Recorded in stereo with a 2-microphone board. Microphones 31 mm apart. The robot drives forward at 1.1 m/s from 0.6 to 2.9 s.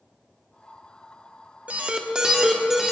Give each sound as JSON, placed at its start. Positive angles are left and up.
{"t": 1.7, "sound": "an alarm", "side_deg": -50, "distance_m": 0.7}